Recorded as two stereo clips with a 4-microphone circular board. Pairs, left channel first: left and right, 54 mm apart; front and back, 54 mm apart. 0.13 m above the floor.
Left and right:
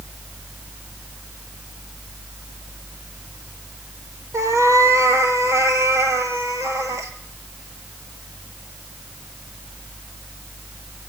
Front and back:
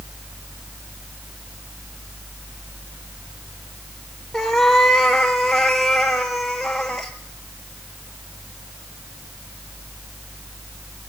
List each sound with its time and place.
4.3 s a cat meowing: 85° right, 2.0 m